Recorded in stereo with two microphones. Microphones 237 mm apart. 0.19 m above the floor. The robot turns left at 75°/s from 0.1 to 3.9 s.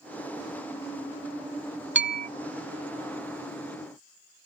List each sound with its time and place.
1.9 s a bell: 50° right (ahead or behind); by 2.3 s 30° right (ahead or behind)